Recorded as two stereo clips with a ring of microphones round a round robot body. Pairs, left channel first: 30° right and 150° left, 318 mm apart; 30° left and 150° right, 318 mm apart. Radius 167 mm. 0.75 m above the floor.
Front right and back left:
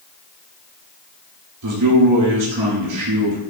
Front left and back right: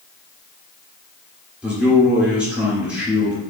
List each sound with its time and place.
1.6 s a man speaking: 125° left, 2.5 m